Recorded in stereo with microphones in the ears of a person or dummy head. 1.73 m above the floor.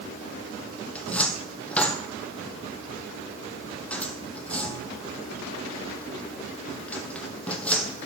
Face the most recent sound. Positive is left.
turn(degrees=5)  # may be behind; listen again after turning